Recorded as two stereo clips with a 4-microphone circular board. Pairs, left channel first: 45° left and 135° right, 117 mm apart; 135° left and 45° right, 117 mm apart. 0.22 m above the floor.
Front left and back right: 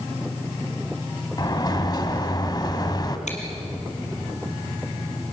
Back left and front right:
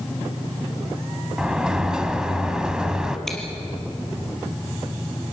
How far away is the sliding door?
About 1.3 m.